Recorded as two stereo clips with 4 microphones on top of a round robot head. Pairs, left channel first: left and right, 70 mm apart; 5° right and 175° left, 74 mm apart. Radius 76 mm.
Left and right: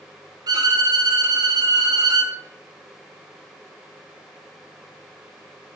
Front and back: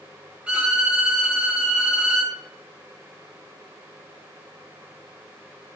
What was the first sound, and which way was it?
A violin, 110° right.